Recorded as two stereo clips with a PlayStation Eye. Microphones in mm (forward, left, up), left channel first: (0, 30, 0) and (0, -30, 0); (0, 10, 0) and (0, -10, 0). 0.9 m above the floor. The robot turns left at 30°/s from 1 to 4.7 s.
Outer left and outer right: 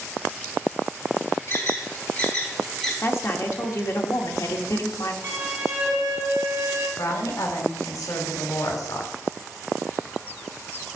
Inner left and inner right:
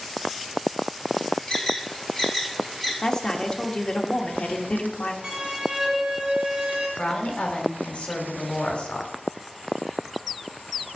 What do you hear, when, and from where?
1.5 s an alarm: 50° left (ahead or behind), 3 m; by 2.9 s 10° left (ahead or behind), 3 m
3.0 s a woman speaking: 135° left, 1.4 m; by 5.1 s 85° left, 1.4 m
5.2 s a violin: 45° right (ahead or behind), 2 m
7.0 s a woman speaking: 85° left, 2.5 m